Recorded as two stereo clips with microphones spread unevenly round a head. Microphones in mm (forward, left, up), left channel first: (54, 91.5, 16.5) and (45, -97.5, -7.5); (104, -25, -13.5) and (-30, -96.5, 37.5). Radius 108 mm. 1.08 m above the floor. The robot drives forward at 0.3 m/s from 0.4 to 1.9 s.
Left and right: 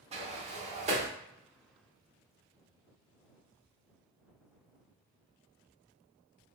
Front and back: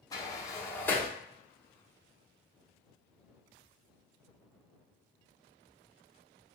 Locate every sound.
0.1 s a sliding door: 55° right, 0.7 m; by 1.1 s 90° right, 0.7 m